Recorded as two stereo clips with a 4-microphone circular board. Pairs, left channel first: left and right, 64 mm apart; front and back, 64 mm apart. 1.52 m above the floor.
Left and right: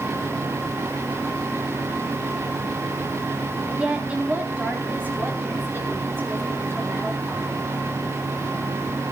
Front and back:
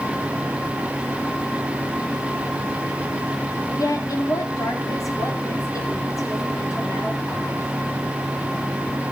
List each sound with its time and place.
3.8 s a woman speaking: 15° right, 3.5 m; by 7.6 s 35° right, 8 m